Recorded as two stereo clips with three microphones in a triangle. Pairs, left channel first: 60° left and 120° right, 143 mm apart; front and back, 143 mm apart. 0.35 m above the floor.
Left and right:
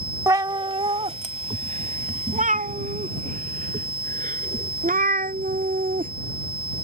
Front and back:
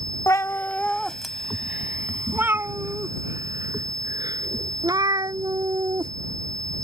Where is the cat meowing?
60° right; by 6.1 s 120° right.